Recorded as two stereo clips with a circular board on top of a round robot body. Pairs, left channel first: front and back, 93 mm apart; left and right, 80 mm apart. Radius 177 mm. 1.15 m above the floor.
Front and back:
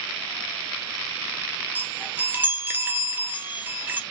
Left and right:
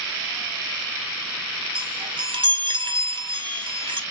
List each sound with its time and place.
1.8 s a chime: 110° right, 0.7 m